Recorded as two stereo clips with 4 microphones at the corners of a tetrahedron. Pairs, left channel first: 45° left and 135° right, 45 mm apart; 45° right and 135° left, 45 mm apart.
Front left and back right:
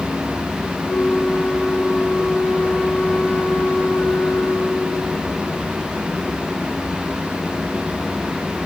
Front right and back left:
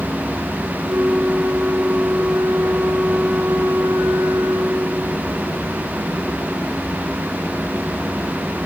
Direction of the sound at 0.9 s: 100° left.